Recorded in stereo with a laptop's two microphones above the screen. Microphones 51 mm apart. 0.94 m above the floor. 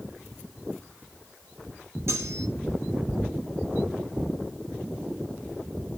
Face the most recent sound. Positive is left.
turn(degrees=-60)  # may be behind; listen again after turning